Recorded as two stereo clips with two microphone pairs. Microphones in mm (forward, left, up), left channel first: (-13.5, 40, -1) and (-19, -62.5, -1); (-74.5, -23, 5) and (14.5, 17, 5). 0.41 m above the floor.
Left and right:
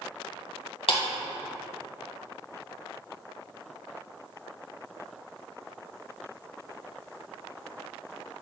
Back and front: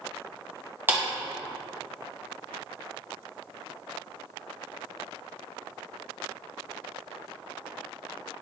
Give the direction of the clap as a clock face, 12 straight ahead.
9 o'clock.